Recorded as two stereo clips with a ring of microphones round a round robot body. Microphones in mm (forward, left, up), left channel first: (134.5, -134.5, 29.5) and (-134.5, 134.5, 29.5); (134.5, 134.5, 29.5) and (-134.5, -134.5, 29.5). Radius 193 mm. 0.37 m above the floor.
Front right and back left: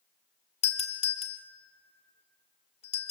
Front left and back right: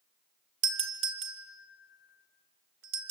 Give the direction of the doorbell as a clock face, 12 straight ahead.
4 o'clock.